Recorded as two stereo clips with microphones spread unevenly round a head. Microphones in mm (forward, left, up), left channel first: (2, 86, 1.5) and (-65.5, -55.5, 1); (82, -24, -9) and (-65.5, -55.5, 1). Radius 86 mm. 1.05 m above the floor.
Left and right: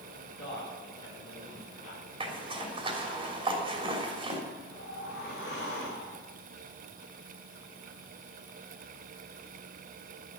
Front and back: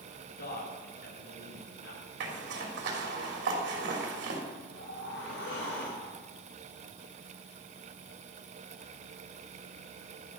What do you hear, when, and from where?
0.3 s a man speaking: 5° right, 4 m; by 2.0 s 10° left, 5 m
2.2 s a zipper: 170° right, 3 m
4.7 s a whoosh: 20° left, 5.5 m